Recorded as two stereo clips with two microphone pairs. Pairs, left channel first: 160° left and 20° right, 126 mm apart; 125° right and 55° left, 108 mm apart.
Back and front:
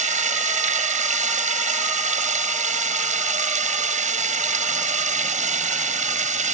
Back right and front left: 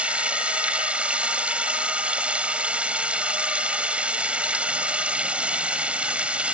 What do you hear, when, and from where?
0.0 s running water: 25° right